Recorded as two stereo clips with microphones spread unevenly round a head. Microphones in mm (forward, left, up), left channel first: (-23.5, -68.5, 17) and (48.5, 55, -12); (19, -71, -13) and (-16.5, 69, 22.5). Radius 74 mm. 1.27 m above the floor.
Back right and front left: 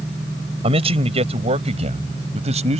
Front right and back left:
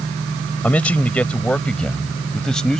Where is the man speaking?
5° left; by 2.8 s 15° left.